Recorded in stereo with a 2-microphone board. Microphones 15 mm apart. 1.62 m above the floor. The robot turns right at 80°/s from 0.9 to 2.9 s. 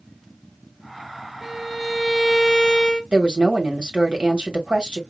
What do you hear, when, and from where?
1.4 s a violin: 5° right (ahead or behind), 1.0 m; by 3.0 s 20° left (ahead or behind), 1.0 m
3.1 s a woman speaking: 75° right (ahead or behind), 1.6 m